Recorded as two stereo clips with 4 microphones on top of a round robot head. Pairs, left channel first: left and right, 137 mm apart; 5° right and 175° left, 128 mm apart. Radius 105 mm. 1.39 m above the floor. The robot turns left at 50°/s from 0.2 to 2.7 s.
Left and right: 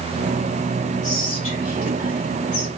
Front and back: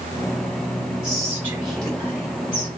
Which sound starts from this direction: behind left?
Whispering, at 1.0 s.